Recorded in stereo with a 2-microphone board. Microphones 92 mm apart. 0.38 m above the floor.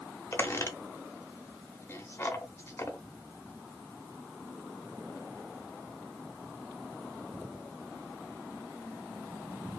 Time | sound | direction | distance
0.3 | a squeak | 30° left (ahead or behind) | 0.7 m